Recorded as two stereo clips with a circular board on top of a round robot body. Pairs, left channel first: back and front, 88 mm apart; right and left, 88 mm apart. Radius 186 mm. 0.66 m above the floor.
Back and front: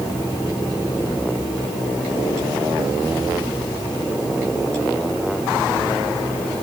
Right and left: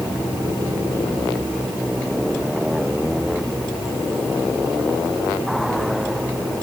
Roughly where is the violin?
No violin in this recording.